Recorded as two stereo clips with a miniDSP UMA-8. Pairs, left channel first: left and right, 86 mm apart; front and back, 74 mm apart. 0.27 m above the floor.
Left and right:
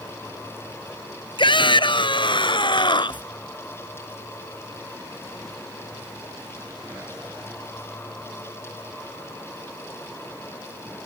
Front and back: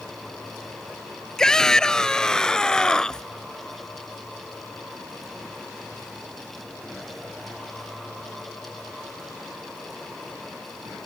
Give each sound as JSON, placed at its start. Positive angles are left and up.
{"t": 1.4, "sound": "a shout", "azimuth_deg": 80}